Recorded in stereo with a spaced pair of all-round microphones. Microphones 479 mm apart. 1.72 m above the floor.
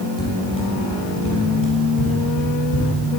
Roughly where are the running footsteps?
Left.